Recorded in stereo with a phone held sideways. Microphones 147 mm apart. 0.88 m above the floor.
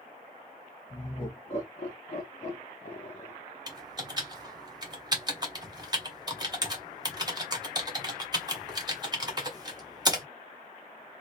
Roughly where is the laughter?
Left.